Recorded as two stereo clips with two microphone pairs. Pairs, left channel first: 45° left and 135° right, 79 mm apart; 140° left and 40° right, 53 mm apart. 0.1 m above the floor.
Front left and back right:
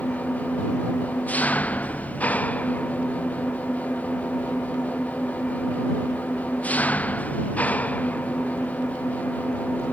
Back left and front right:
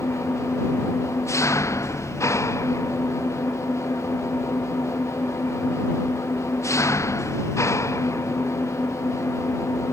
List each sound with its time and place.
0.0 s an engine running: 115° left